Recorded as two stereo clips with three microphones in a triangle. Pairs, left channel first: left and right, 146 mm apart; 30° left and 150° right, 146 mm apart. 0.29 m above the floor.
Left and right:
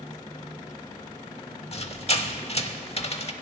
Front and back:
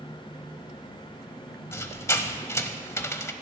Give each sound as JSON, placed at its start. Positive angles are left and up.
{"t": 1.7, "sound": "a squeak", "azimuth_deg": 90, "distance_m": 0.8}